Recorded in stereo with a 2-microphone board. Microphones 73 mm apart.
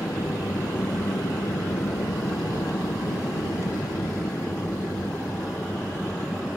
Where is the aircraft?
50° left (ahead or behind); by 6.6 s 25° left (ahead or behind).